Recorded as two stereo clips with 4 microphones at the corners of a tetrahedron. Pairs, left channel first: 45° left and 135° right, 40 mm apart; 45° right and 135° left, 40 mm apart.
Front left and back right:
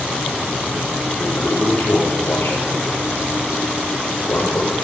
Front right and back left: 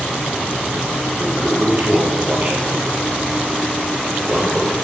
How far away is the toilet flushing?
About 10 m.